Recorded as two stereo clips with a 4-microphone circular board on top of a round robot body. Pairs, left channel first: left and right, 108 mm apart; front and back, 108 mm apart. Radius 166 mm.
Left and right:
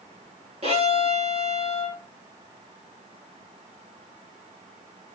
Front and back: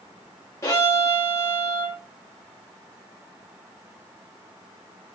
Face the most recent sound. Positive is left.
turn(degrees=-65)